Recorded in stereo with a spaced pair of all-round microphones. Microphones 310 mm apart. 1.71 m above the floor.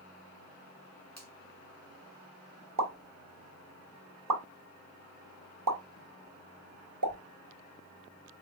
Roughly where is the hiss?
I don't hear a hiss.